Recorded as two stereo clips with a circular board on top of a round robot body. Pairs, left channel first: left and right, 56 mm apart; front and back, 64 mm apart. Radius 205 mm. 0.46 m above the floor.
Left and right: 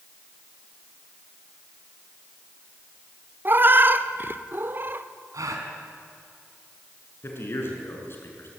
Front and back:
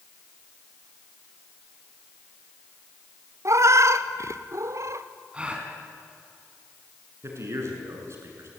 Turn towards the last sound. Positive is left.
turn(degrees=135)